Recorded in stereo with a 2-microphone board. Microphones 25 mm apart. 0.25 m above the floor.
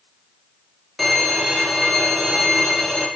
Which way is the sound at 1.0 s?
5° left (ahead or behind).